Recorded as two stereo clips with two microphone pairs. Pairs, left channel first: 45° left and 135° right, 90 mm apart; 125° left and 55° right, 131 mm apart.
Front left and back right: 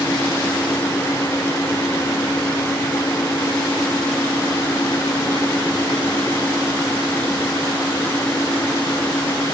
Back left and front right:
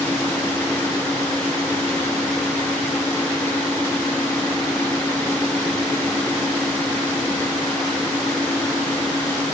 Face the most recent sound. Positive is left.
No sound to turn to.